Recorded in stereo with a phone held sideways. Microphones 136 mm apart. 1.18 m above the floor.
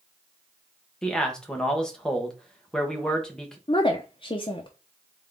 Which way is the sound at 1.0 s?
5° left (ahead or behind).